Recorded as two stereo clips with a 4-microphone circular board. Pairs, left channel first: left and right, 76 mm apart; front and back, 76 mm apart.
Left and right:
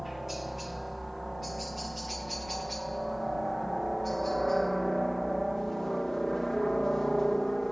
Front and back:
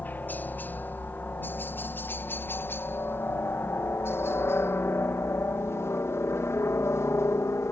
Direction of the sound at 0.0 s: Straight ahead.